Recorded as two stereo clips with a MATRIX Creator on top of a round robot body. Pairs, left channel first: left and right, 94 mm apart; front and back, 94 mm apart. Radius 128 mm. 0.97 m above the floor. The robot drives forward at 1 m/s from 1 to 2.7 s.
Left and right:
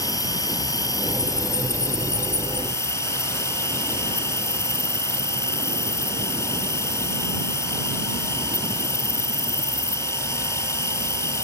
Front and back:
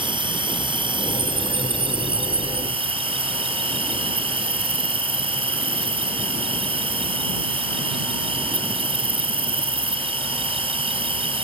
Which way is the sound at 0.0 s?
145° left.